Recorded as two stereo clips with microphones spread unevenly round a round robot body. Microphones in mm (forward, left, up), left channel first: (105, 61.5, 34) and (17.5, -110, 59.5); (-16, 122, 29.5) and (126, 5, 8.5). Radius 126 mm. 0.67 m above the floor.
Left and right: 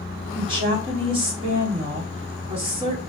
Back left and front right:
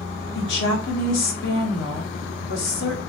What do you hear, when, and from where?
0.3 s a woman speaking: 175° left, 1.3 m